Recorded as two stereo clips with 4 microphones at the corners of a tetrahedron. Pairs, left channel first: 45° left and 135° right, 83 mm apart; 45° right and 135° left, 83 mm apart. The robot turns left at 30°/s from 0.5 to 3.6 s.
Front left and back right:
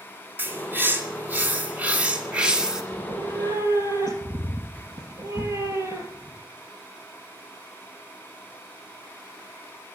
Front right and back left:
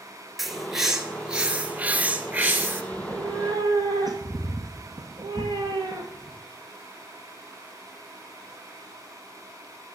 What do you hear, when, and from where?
0.4 s a bird: 135° right, 1.6 m; by 2.8 s 155° left, 1.6 m
2.9 s a cat meowing: 165° right, 2.5 m; by 6.4 s 170° left, 2.5 m